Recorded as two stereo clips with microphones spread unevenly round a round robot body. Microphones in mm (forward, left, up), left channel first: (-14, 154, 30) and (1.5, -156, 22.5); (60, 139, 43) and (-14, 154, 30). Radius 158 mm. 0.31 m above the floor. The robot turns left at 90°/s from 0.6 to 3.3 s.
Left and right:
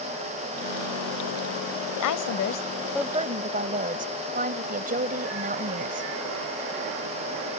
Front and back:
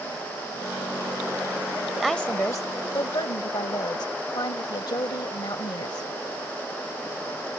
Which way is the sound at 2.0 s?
90° left.